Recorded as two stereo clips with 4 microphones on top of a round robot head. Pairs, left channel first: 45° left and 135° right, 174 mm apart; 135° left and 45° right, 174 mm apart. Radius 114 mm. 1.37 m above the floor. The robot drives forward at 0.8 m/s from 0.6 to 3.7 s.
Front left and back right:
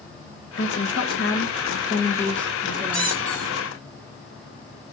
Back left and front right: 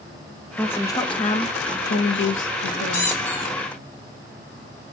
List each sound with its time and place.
0.6 s a woman speaking: 55° left, 1.2 m; by 3.3 s 145° left, 1.8 m
2.9 s a squeak: 125° left, 2.5 m; by 3.5 s 135° left, 3 m